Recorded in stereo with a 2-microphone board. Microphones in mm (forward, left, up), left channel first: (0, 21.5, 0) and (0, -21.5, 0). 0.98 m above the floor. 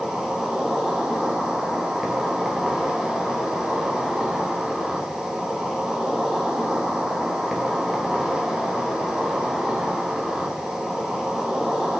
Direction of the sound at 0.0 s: 15° right (ahead or behind).